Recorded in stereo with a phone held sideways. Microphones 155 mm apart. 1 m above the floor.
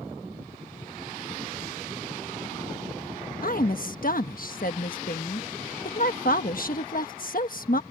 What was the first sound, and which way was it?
A woman speaking, 65° left (ahead or behind).